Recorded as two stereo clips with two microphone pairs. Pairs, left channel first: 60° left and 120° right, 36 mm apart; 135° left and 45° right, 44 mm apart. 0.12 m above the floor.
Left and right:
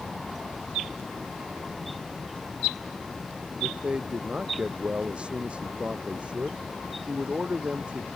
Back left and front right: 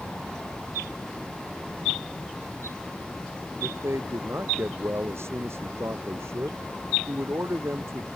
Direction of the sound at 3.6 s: 60° right.